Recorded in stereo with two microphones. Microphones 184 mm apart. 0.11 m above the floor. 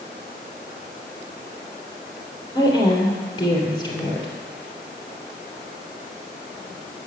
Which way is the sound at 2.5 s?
25° left (ahead or behind).